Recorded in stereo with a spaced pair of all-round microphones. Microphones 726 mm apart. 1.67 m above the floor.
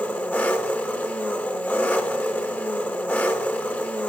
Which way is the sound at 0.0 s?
Centre (ahead or behind).